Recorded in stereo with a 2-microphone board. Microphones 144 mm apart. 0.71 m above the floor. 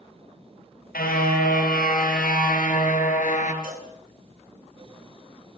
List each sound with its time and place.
0.9 s a car horn: 85° left, 6 m; by 3.5 s 60° left (ahead or behind), 4.5 m
3.6 s a cowbell: 75° right (ahead or behind), 8.5 m